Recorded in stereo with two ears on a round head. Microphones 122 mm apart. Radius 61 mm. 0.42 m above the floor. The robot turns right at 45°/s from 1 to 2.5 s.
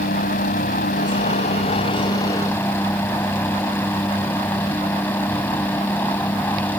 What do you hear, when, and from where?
0.0 s a helicopter: 60° left (ahead or behind); by 6.8 s 15° left (ahead or behind)